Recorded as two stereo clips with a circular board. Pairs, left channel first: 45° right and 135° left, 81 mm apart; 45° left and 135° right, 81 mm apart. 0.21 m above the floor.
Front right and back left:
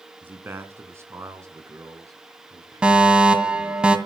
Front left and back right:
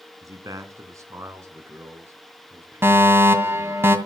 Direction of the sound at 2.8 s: 160° right.